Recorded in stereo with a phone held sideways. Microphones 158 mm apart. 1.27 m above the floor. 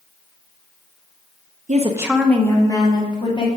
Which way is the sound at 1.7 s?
55° right (ahead or behind).